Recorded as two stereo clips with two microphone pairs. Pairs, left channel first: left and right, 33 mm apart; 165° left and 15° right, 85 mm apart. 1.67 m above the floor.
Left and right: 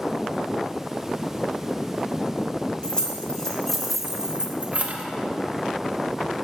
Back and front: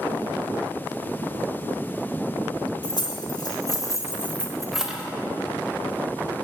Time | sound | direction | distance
2.8 | keys jangling | 150° left | 1.5 m